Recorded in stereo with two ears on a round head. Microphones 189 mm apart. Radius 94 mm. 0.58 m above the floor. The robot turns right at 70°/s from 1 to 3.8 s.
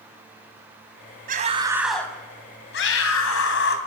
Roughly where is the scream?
Ahead right.